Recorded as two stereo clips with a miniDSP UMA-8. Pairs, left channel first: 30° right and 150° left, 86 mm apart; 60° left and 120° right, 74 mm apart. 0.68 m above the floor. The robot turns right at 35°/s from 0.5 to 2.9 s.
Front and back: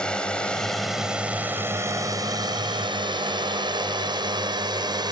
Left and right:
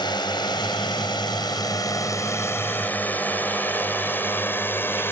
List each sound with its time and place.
0.0 s a drone: 50° left; by 5.1 s 115° left